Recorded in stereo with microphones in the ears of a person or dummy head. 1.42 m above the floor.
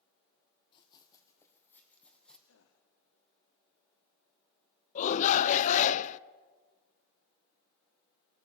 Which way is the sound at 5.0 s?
40° left (ahead or behind).